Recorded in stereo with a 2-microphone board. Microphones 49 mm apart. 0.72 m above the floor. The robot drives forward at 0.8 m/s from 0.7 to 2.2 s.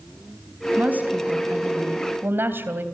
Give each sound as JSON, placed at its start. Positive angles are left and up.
{"t": 0.8, "sound": "a woman speaking", "side_deg": -35, "distance_m": 4.0}